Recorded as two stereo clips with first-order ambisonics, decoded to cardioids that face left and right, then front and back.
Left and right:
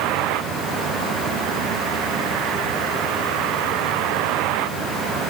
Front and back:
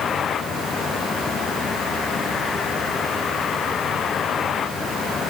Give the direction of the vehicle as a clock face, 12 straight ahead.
2 o'clock.